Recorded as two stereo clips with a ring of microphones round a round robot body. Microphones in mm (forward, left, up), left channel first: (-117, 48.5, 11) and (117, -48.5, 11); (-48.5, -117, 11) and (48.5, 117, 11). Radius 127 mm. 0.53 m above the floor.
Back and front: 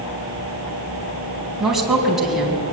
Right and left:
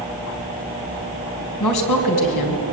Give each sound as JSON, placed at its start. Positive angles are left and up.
{"t": 1.6, "sound": "a woman speaking", "azimuth_deg": -110, "distance_m": 4.0}